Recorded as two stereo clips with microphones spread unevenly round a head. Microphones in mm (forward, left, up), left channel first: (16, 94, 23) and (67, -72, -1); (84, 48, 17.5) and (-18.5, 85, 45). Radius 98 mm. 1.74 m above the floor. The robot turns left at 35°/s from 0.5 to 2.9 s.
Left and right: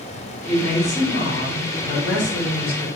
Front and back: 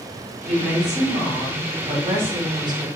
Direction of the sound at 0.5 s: 165° right.